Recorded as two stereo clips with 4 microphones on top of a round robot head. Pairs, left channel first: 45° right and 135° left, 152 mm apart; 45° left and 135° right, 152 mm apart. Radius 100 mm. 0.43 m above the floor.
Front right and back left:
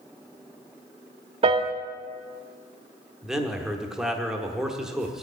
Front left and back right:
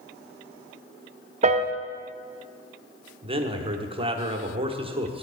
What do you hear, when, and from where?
1.4 s a piano: 175° right, 0.8 m
3.2 s a man speaking: 140° right, 1.2 m